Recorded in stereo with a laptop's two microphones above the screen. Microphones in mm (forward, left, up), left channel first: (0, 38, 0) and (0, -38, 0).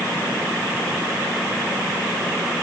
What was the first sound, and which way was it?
Only background noise.